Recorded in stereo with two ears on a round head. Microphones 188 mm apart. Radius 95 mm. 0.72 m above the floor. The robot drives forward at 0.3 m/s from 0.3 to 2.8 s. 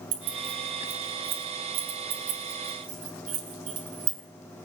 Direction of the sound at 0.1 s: 65° right (ahead or behind).